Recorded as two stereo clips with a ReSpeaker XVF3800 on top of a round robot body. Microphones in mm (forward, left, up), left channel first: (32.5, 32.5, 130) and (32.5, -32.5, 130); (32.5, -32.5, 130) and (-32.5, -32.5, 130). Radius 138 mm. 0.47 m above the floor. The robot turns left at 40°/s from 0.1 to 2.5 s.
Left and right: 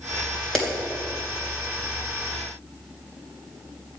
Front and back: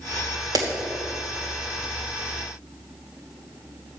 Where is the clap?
175° left, 2.5 m; by 0.7 s 170° left, 2.5 m.